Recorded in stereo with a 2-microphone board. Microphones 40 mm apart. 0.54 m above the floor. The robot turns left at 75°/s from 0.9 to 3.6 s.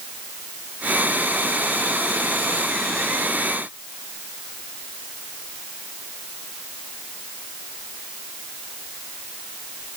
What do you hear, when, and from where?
Only background noise.